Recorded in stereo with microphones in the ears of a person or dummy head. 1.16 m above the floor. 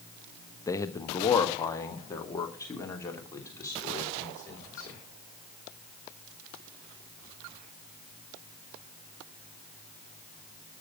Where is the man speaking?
20° left (ahead or behind), 1.0 m.